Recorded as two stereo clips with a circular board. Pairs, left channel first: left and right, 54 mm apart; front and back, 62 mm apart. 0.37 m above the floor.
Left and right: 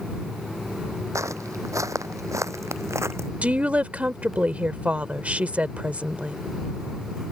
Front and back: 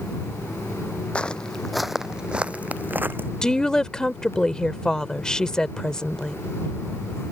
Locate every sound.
1.1 s footsteps: 70° right; by 3.3 s 125° right
3.4 s a woman speaking: 65° right